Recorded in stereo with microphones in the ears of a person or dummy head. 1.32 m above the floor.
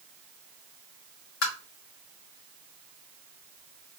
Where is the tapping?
65° left (ahead or behind), 1.3 m.